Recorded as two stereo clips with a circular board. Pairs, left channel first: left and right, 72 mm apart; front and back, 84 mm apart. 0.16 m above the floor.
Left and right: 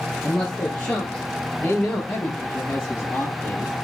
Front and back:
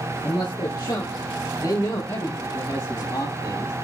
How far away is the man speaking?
About 3 m.